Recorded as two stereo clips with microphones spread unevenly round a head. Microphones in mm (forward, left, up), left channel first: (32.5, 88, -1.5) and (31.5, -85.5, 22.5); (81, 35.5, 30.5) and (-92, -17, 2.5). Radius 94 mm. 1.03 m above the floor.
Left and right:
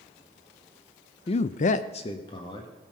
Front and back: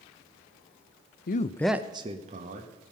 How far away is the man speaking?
About 0.6 m.